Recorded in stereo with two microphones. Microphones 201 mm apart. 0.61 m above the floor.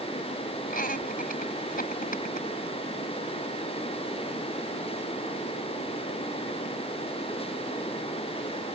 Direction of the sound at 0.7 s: 45° left (ahead or behind).